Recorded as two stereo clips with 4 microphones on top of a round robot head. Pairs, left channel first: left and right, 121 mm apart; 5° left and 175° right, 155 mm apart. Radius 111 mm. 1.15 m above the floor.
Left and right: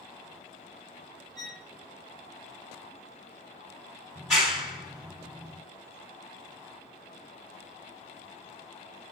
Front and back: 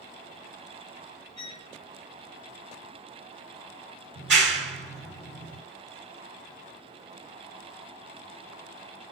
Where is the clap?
175° right, 2.5 m.